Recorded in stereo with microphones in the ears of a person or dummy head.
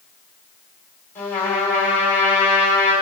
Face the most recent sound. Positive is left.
turn(degrees=15)  # may be behind; listen again after turning